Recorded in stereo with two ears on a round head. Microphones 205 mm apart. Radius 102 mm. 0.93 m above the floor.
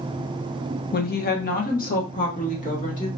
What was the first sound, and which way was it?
A woman speaking, 40° left (ahead or behind).